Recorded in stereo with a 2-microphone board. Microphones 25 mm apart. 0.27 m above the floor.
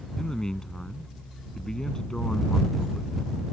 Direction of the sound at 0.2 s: 30° left (ahead or behind).